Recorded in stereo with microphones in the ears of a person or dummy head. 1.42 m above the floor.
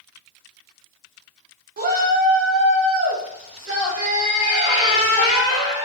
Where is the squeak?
30° right (ahead or behind), 1.6 m.